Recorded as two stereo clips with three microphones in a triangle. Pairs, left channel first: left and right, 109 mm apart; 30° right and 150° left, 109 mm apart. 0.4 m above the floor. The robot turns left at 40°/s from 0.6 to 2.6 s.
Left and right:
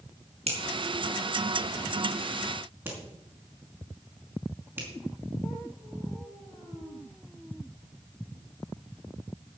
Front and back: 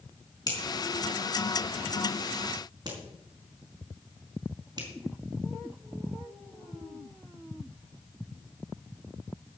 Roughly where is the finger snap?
Right.